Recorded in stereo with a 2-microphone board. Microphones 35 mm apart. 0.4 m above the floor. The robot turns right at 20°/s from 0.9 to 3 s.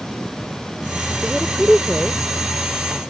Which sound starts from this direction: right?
A woman speaking, at 1.2 s.